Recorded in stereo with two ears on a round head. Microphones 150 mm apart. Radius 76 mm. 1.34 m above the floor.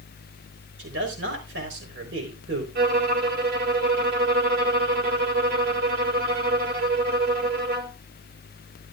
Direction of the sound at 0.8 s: 90° right.